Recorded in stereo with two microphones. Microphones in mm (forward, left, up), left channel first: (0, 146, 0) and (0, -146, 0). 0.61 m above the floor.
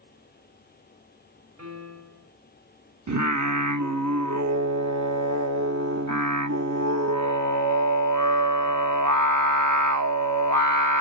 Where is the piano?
55° right (ahead or behind), 2 m.